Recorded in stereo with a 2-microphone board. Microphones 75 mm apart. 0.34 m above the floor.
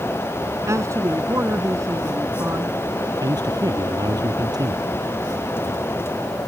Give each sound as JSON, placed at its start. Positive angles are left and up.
{"t": 0.7, "sound": "a man speaking", "side_deg": -40}
{"t": 3.2, "sound": "a man speaking", "side_deg": -60}